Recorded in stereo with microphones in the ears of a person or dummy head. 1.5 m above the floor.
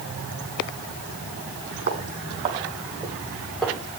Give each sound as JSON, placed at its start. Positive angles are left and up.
{"t": 1.9, "sound": "footsteps", "side_deg": -40, "distance_m": 3.5}